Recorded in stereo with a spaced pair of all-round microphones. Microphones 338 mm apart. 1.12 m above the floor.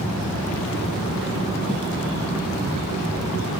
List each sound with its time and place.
1.7 s footsteps: centre (ahead or behind), 2.5 m